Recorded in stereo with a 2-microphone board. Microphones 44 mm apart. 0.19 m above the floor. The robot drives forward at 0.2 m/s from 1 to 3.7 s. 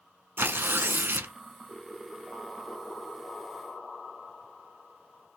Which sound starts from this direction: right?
Tearing paper, at 0.4 s.